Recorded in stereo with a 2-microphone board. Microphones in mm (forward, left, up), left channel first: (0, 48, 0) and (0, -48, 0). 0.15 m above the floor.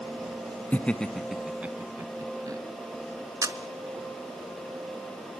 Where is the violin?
I don't hear a violin.